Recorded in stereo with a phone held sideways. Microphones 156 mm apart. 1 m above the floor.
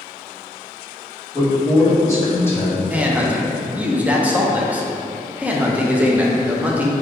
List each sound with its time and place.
1.3 s a man speaking: 20° left (ahead or behind), 1.7 m; by 2.8 s 10° left (ahead or behind), 0.7 m
2.9 s a man speaking: 10° right (ahead or behind), 0.5 m